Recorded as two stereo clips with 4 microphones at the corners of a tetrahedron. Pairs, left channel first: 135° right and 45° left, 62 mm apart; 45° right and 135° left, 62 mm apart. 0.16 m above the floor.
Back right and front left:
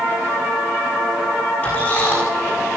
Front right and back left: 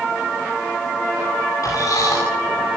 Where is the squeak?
75° right, 9.5 m.